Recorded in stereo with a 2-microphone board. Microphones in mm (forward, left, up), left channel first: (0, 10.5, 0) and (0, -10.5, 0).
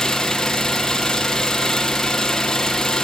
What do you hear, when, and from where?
0.0 s an engine running: 25° left (ahead or behind), 2.5 m